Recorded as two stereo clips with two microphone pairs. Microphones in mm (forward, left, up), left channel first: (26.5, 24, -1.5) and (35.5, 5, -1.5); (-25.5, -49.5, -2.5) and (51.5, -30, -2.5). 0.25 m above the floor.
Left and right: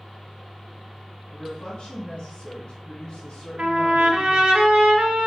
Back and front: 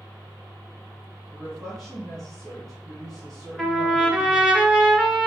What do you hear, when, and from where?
1.3 s a woman speaking: 125° left, 2 m
3.6 s a trumpet: 70° right, 1.4 m